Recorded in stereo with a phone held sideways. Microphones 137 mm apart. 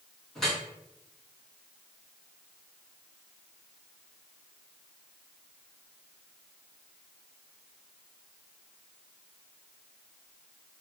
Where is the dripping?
5° left (ahead or behind), 1.8 m.